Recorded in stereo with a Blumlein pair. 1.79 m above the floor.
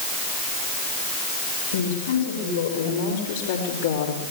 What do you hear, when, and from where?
1.7 s a woman speaking: 60° left, 7.5 m; by 4.3 s 65° left, 4.5 m